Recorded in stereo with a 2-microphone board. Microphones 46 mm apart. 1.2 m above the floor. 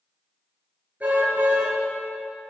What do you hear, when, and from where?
1.0 s a car horn: 40° right (ahead or behind), 7.5 m